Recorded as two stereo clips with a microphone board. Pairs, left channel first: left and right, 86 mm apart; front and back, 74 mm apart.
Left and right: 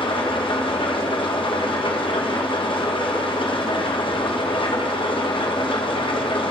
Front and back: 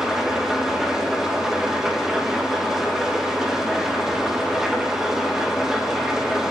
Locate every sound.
0.0 s an engine running: 100° left, 1.0 m